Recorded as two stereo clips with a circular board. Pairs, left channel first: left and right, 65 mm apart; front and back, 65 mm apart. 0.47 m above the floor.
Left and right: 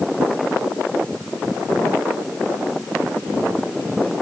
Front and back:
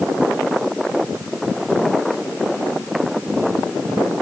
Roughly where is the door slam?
No door slam in this recording.